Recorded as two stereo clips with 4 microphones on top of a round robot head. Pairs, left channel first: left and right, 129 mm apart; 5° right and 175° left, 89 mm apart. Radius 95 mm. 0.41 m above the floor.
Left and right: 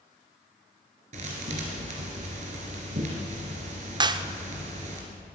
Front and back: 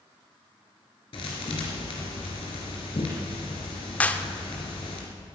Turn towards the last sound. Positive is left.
turn(degrees=-65)